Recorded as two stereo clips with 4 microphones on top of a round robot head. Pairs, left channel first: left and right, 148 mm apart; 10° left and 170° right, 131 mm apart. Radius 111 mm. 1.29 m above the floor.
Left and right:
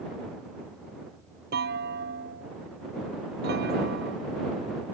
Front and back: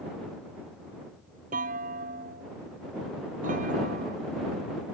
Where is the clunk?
125° right.